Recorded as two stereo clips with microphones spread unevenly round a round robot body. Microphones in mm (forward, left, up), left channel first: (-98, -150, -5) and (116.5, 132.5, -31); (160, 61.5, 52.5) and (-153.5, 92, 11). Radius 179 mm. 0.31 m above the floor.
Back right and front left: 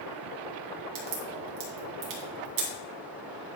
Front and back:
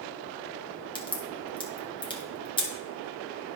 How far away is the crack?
About 2 m.